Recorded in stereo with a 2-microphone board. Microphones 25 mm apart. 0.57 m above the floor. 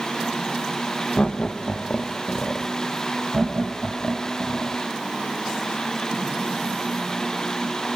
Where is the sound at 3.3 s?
20° right (ahead or behind), 3.5 m.